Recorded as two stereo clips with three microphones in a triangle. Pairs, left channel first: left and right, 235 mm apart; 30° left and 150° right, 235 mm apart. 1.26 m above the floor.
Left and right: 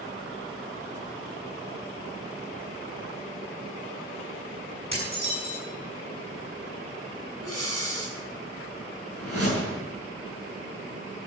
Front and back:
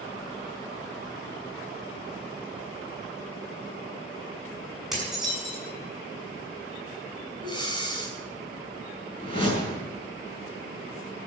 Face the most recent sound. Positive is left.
turn(degrees=95)